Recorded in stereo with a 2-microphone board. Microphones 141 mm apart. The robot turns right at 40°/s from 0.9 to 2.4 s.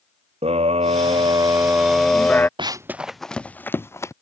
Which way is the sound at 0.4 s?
45° right.